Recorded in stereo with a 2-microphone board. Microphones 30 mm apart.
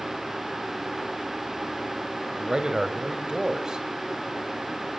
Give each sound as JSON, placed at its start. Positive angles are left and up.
{"t": 2.4, "sound": "a man speaking", "side_deg": -20, "distance_m": 1.5}